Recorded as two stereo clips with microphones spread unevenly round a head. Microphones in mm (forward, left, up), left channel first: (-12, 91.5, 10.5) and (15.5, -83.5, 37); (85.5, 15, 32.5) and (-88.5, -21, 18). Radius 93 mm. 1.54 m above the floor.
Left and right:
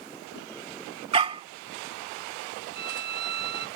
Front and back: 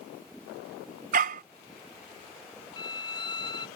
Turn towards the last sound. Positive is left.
turn(degrees=-55)